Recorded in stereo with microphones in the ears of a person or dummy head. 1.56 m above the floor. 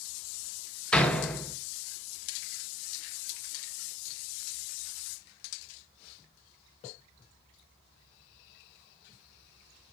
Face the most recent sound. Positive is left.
turn(degrees=5)  # may be behind; listen again after turning